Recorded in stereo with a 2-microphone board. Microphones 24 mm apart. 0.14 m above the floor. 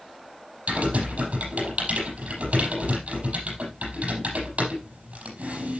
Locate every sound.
0.7 s typing on a keyboard: 70° right (ahead or behind), 5.5 m